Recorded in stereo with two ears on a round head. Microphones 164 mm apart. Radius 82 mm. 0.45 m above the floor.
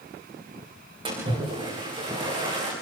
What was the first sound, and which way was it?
A splash, 30° right (ahead or behind).